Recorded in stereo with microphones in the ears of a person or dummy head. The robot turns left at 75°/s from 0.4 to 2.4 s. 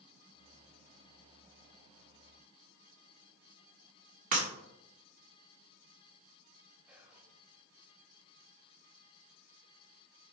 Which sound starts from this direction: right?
Breaking glass, at 4.3 s.